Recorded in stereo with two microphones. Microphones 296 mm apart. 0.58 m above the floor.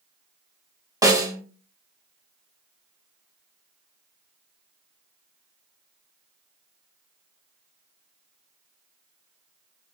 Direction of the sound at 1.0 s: 10° right (ahead or behind).